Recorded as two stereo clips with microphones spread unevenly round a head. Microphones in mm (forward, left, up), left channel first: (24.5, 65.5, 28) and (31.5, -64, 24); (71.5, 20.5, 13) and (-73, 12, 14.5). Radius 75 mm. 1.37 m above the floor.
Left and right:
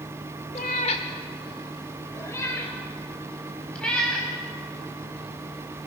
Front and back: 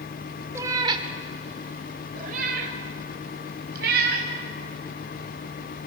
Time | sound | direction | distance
0.6 | a cat meowing | 120° left | 1.3 m